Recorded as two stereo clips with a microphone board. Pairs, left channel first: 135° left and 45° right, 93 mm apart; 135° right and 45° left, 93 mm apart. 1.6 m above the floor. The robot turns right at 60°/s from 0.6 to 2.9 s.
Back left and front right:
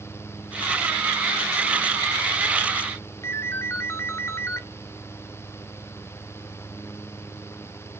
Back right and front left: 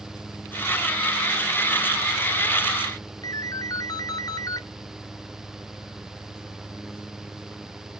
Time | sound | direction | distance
3.2 | a ringtone | 170° right | 0.8 m